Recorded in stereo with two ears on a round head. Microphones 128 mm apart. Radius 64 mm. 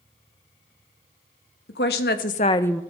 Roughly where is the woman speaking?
Left.